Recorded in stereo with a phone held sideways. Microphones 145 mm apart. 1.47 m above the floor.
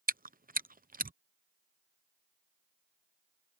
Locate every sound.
0.1 s chewing: 70° right (ahead or behind)